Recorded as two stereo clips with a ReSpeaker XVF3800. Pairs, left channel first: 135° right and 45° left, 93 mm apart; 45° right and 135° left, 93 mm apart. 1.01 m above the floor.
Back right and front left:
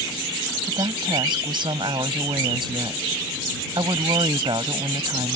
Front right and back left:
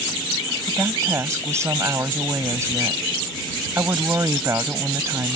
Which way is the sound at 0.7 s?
75° left.